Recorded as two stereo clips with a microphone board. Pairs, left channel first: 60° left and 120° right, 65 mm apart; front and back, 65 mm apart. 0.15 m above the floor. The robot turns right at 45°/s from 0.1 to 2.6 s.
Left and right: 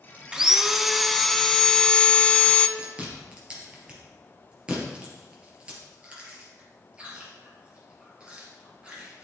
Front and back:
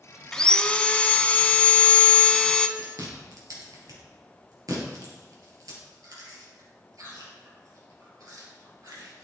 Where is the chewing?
170° left, 3 m.